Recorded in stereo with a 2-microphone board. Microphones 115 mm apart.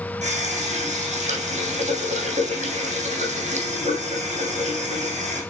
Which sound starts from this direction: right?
A running tap, at 0.2 s.